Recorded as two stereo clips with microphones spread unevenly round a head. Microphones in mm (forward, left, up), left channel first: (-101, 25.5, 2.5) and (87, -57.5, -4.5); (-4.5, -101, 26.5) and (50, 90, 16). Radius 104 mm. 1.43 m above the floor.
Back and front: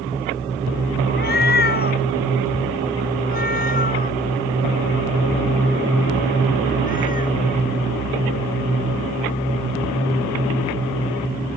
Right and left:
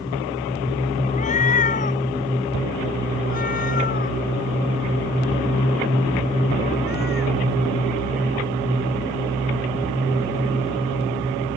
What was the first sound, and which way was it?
A cat meowing, 165° right.